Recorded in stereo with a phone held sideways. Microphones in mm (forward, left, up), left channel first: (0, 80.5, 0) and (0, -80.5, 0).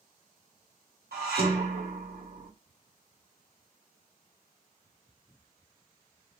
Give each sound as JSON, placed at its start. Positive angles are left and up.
{"t": 1.1, "sound": "dishes clattering", "side_deg": -80, "distance_m": 2.0}